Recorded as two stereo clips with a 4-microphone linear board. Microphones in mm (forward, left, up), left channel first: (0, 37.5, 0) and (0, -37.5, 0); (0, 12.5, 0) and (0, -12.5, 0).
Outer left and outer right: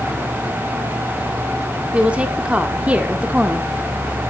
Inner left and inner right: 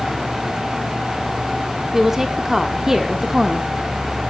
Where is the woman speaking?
15° right (ahead or behind), 1.7 m.